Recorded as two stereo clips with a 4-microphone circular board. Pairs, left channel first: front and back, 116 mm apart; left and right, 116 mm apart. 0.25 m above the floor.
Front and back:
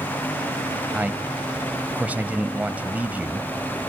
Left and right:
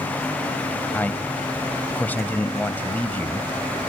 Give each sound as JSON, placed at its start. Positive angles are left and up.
{"t": 0.9, "sound": "a man speaking", "azimuth_deg": 130, "distance_m": 1.0}